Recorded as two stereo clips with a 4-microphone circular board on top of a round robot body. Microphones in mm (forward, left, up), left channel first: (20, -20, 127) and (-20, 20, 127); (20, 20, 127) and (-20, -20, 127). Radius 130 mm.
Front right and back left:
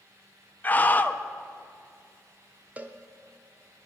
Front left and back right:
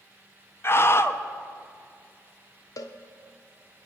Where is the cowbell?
65° left, 0.7 m.